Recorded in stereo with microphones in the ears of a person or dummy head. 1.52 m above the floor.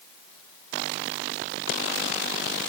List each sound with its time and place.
Only background noise.